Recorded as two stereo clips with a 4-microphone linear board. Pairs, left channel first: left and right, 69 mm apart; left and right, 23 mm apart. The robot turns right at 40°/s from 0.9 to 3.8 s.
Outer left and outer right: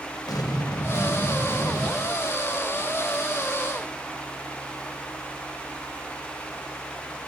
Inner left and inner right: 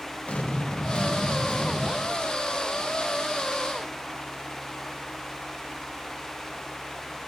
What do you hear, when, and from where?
0.3 s an explosion: 75° left, 0.5 m; by 1.9 s 115° left, 0.5 m